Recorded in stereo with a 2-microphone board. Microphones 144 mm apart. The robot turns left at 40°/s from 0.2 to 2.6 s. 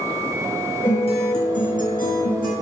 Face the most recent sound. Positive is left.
turn(degrees=75)